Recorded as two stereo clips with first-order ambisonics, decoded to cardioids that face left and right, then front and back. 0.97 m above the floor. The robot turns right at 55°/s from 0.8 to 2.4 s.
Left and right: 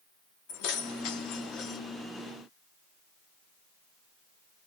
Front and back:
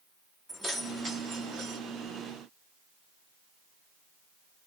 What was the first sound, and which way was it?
Keys jangling, 95° left.